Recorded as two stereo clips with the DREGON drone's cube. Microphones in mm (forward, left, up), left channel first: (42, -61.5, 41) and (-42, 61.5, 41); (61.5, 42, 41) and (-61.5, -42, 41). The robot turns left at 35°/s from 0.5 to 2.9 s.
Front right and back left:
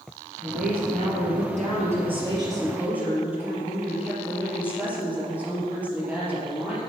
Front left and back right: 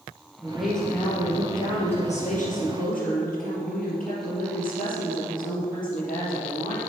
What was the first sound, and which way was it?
A woman speaking, 130° left.